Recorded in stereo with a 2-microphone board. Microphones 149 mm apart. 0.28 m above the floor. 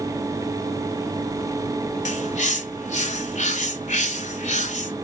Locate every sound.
2.0 s a bird: 55° left (ahead or behind), 1.0 m